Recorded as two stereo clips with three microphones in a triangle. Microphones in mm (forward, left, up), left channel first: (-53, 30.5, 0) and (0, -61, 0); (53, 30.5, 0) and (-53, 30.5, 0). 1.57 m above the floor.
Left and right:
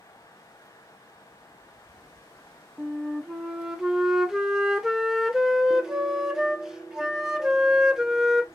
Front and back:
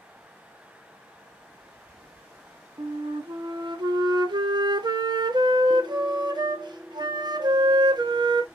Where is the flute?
145° right, 0.6 m.